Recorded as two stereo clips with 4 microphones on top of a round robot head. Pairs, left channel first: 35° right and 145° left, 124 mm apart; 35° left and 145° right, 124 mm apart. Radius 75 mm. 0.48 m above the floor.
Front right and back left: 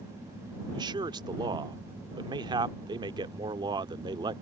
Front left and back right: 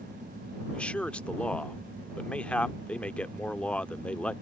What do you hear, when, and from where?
0.7 s a man speaking: 110° left